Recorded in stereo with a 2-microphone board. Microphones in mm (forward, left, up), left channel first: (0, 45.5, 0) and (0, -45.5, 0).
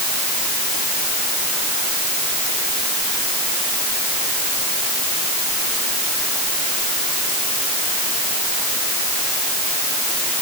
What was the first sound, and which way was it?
Only background noise.